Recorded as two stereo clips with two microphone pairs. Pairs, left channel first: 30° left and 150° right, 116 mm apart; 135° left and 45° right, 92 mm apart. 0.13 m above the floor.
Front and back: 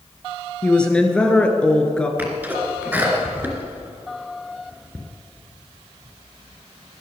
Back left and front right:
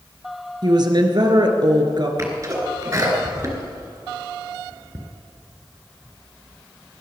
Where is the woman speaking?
50° right, 1.8 m.